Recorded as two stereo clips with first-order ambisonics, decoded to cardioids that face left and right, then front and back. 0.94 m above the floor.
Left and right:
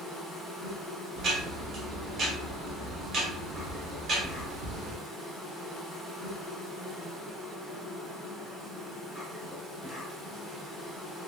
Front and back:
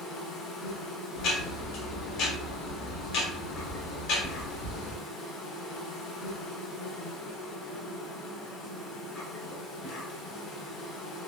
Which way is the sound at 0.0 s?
15° right.